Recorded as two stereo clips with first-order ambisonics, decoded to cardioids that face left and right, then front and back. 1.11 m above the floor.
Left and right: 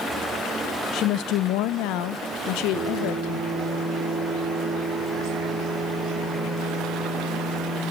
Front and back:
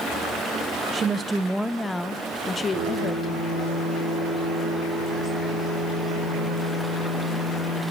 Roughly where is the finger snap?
I don't hear a finger snap.